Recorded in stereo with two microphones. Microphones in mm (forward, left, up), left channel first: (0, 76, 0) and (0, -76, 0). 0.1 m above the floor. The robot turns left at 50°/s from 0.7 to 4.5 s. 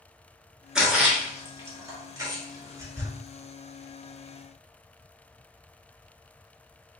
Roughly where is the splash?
Centre.